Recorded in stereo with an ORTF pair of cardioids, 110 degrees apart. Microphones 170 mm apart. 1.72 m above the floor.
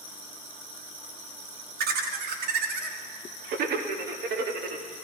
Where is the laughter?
65° right, 1.5 m.